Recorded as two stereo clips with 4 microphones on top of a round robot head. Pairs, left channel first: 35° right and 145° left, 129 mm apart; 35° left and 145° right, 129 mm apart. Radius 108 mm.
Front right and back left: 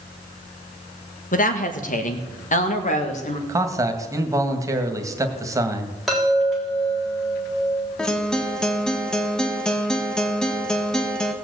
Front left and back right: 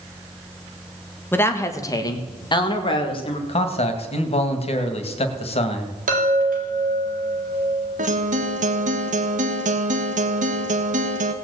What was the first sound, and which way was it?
A woman speaking, 35° right.